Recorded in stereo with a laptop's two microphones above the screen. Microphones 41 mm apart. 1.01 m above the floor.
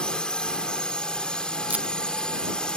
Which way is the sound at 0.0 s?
25° left (ahead or behind).